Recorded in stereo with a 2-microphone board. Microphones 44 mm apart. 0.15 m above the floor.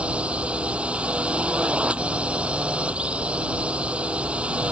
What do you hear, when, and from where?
0.0 s a drone: 25° right (ahead or behind)